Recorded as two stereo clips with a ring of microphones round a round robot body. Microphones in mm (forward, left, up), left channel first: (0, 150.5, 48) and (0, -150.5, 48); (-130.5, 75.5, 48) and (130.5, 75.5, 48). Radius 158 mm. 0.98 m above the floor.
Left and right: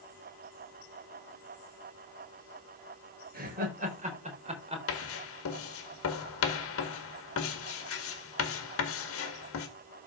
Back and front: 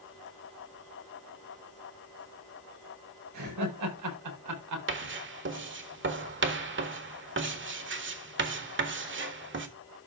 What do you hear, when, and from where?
3.3 s laughter: 25° right, 4.5 m; by 4.8 s 15° right, 3.5 m
4.9 s writing: 45° left, 1.6 m